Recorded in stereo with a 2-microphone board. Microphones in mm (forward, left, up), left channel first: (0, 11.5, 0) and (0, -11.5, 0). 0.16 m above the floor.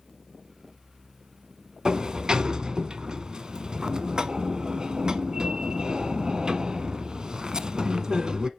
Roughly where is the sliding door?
Right.